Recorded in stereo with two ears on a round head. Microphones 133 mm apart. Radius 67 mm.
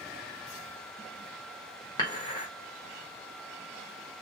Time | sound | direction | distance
2.0 | dishes clattering | 30° left (ahead or behind) | 1.1 m